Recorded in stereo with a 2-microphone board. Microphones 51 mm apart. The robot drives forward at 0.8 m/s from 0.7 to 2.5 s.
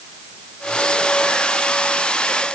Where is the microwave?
No microwave in this recording.